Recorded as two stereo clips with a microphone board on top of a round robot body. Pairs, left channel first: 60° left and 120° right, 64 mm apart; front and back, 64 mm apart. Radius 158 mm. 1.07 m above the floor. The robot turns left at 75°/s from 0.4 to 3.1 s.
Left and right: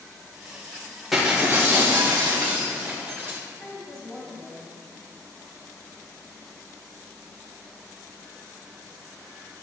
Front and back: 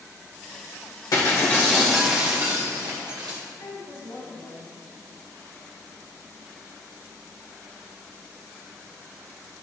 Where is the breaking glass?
30° right, 1.4 m; by 3.4 s straight behind, 1.4 m.